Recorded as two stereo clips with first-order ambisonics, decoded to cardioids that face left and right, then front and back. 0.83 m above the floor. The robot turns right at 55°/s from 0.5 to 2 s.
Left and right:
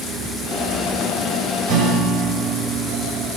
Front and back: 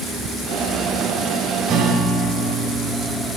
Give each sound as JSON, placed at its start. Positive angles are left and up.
{"t": 1.7, "sound": "a guitar", "azimuth_deg": -125, "distance_m": 1.8}